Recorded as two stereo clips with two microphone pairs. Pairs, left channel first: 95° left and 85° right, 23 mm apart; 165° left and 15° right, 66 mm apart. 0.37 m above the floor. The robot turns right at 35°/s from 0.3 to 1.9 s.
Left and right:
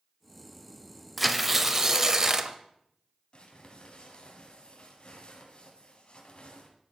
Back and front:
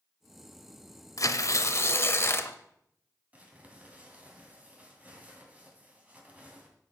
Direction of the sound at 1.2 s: 175° right.